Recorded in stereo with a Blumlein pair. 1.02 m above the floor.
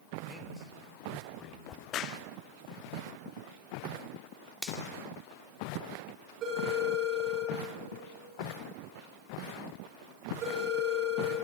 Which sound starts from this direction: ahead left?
A crack, at 1.7 s.